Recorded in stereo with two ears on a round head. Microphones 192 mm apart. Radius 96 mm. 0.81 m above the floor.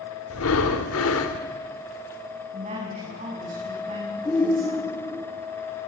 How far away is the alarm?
No alarm in this recording.